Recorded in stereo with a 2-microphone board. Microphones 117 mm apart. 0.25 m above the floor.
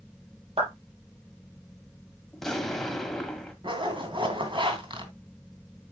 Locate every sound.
0.6 s a clap: 60° right (ahead or behind), 4.5 m
2.3 s an explosion: 5° left (ahead or behind), 1.5 m
3.6 s a zipper: 45° right (ahead or behind), 2.5 m